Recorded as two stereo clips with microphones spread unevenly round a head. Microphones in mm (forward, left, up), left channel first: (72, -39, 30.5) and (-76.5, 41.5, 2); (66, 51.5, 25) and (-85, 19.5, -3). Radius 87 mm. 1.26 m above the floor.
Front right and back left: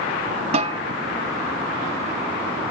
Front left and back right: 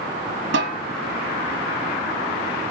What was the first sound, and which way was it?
A snare drum, 150° right.